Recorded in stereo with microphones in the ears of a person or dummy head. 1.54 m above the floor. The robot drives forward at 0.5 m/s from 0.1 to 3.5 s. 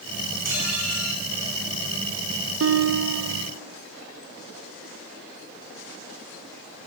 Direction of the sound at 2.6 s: 70° right (ahead or behind).